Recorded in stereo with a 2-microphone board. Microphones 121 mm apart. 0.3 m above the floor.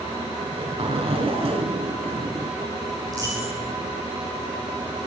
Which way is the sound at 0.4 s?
55° right (ahead or behind).